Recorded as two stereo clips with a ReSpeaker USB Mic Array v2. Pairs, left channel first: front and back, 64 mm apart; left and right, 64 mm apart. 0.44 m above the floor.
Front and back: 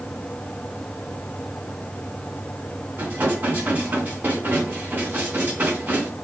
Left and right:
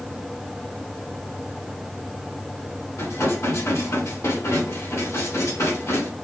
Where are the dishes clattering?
120° left, 2.5 m.